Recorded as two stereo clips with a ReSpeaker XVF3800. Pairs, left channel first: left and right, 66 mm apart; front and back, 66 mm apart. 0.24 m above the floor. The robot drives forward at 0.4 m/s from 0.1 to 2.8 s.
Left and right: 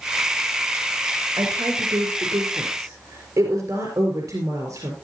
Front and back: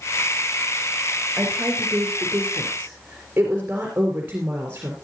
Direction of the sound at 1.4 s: 110° right.